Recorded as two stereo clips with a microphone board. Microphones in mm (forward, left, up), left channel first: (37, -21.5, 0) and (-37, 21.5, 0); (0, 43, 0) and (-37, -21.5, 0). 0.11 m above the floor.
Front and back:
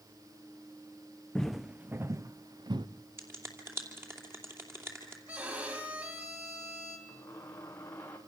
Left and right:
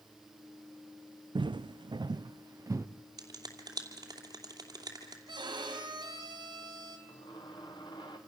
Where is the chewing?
No chewing in this recording.